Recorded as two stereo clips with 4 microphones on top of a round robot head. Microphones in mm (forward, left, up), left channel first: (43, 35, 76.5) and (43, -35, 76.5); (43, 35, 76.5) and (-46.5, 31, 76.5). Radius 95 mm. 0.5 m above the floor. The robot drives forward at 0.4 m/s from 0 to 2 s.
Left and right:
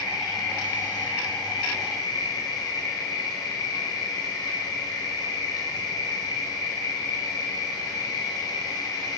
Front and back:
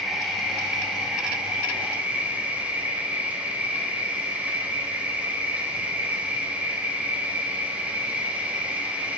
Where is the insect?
95° left, 3 m; by 9.2 s 110° left, 3.5 m.